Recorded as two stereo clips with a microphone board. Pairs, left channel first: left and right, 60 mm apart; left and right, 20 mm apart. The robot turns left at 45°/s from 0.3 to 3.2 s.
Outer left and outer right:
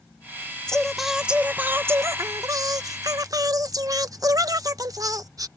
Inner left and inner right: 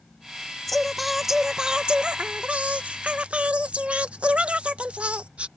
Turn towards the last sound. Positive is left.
turn(degrees=-100)